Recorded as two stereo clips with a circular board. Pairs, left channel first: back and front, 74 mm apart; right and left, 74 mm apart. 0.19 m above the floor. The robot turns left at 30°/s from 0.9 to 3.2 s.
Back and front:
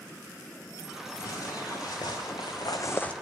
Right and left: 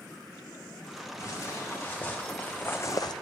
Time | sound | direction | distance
1.2 | footsteps | 140° right | 2.5 m